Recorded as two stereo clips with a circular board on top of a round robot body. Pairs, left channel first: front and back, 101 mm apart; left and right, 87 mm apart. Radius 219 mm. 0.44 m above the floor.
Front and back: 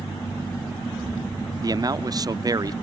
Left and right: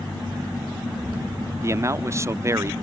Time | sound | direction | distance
1.6 | a man speaking | 140° right | ?